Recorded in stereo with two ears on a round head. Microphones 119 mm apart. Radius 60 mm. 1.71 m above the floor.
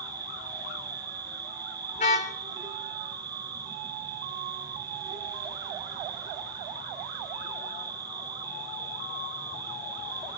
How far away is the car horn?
About 2.5 m.